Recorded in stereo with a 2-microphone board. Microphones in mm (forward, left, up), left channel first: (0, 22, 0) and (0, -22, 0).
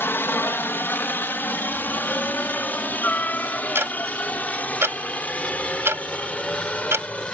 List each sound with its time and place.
0.0 s a helicopter: 55° left (ahead or behind); by 7.3 s 30° left (ahead or behind)
3.8 s ticking: 70° right (ahead or behind)